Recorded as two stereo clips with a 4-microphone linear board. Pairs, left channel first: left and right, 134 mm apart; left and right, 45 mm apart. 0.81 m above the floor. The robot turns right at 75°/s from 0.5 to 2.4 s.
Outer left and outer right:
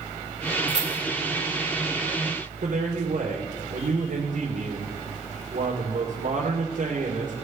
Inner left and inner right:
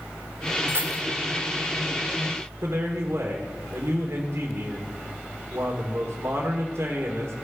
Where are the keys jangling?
55° right (ahead or behind), 2.0 m; by 1.0 s 75° right (ahead or behind), 2.0 m.